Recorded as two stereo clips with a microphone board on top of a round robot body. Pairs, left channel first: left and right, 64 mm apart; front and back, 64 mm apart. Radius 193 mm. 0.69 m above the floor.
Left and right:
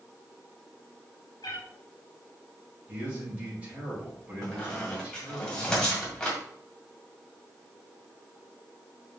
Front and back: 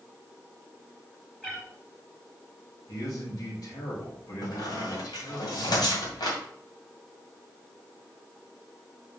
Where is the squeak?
15° left, 2 m.